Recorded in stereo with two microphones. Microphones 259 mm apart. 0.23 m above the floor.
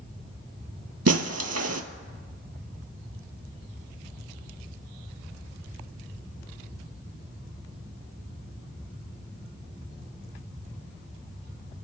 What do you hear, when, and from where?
1.1 s breaking glass: 75° right (ahead or behind), 0.8 m